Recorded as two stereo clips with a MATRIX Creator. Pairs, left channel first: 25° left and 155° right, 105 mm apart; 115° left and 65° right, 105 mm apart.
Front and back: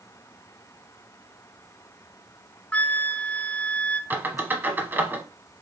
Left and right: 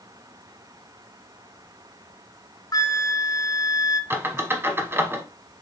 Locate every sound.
2.7 s a flute: 90° left, 0.6 m
4.1 s a squeak: 110° right, 0.8 m